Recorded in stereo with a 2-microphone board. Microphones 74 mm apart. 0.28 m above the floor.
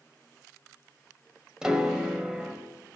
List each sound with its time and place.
1.6 s a piano: 10° right (ahead or behind), 1.3 m